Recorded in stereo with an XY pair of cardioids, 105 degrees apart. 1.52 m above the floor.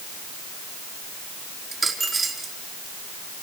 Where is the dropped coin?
30° right, 4.5 m.